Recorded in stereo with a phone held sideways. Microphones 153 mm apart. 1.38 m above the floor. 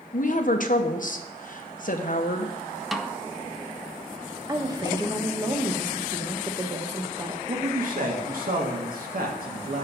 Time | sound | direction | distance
0.1 | a woman speaking | 60° left (ahead or behind) | 1.0 m
2.9 | a snare drum | centre (ahead or behind) | 0.5 m
4.5 | a woman speaking | 25° right (ahead or behind) | 1.1 m
7.5 | a man speaking | 65° right (ahead or behind) | 1.9 m